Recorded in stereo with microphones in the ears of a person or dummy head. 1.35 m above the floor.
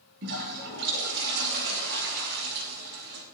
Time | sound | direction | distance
0.2 | a toilet flushing | 65° right (ahead or behind) | 6 m